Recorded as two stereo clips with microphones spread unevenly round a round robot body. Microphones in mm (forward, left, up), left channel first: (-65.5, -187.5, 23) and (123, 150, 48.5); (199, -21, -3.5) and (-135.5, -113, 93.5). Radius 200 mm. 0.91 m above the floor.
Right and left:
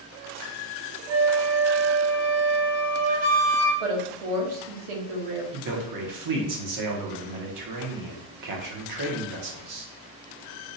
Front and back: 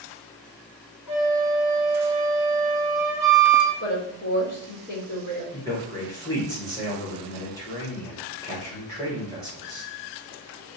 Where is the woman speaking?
75° left, 1.0 m.